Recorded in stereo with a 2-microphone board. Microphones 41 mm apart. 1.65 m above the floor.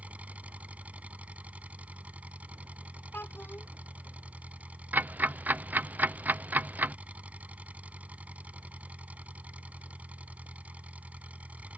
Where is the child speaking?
60° left (ahead or behind).